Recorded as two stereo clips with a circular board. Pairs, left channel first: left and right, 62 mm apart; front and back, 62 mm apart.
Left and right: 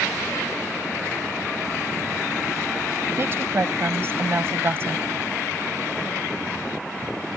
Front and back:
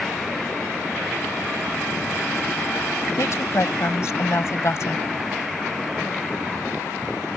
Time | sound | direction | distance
3.2 | a woman speaking | 40° right | ?